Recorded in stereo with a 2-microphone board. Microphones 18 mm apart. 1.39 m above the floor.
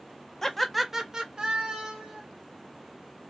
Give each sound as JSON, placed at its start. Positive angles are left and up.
{"t": 0.4, "sound": "laughter", "side_deg": 15, "distance_m": 0.6}